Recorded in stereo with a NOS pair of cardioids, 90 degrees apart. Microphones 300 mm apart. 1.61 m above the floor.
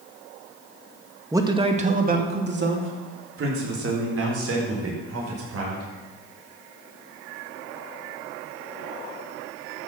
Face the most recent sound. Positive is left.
turn(degrees=-55)